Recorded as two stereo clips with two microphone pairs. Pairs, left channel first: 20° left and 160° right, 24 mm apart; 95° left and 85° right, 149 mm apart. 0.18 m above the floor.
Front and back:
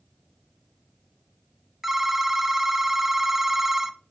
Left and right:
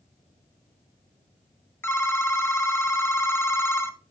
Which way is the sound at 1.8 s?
135° left.